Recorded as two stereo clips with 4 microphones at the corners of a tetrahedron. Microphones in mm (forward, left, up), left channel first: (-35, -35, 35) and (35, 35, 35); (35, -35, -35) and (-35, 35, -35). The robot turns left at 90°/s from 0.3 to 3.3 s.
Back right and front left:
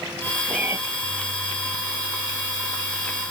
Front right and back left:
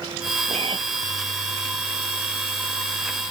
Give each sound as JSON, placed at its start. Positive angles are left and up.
{"t": 0.5, "sound": "a cat meowing", "azimuth_deg": 125}